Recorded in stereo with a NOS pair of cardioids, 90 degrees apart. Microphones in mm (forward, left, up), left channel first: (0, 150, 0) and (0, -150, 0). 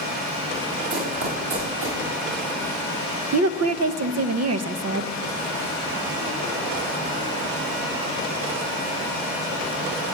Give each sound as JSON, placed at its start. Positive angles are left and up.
{"t": 0.9, "sound": "running footsteps", "azimuth_deg": -50, "distance_m": 6.0}
{"t": 3.3, "sound": "a woman speaking", "azimuth_deg": -60, "distance_m": 0.9}